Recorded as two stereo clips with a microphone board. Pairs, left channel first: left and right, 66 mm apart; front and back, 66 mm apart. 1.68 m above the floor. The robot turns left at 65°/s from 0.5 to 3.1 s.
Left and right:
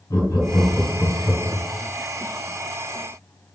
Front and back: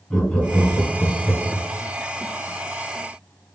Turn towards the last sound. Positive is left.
turn(degrees=-80)